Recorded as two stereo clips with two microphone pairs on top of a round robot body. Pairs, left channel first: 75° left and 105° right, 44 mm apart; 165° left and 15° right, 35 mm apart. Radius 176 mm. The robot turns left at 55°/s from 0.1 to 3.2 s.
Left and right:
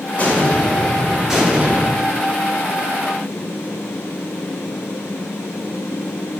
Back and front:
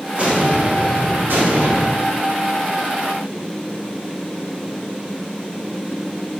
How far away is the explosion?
About 1.2 m.